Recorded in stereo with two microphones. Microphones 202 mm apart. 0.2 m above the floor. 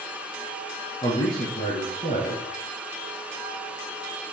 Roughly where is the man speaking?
Left.